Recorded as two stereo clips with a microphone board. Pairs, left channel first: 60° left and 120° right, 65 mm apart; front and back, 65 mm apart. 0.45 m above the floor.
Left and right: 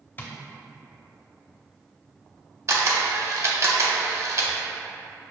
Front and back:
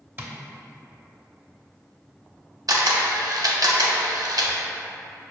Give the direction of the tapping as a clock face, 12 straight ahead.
8 o'clock.